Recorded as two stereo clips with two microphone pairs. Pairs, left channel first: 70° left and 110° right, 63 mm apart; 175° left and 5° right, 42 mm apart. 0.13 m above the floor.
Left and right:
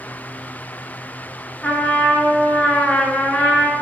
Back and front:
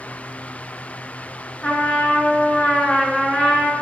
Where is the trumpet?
130° left, 1.6 m.